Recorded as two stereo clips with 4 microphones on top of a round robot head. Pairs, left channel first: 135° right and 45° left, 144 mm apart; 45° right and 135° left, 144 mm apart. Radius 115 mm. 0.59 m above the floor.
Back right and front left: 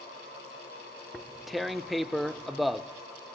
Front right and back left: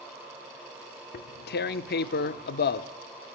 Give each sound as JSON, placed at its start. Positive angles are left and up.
{"t": 1.1, "sound": "tearing paper", "azimuth_deg": -45, "distance_m": 0.6}